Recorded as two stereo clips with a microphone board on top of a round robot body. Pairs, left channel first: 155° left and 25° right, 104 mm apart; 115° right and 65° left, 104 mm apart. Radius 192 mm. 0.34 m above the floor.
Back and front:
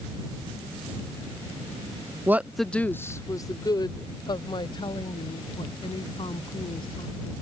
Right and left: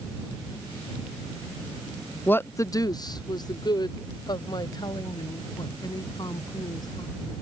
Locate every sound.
2.3 s a woman speaking: 60° right; by 7.4 s 165° right